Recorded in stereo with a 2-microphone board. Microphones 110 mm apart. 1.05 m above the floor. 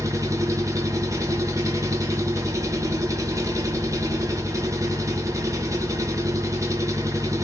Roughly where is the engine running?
Right.